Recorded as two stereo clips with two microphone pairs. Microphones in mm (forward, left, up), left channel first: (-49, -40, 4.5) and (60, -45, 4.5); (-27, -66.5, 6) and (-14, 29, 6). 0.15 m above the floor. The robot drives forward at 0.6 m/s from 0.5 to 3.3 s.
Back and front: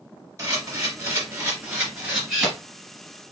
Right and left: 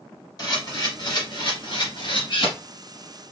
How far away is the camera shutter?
About 3 m.